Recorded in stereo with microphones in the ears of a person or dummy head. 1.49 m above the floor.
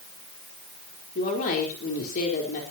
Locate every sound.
1.1 s a woman speaking: 45° left (ahead or behind), 4 m